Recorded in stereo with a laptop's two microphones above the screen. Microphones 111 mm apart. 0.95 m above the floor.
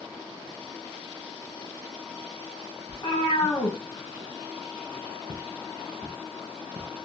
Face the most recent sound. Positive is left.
turn(degrees=20)  # may be behind; listen again after turning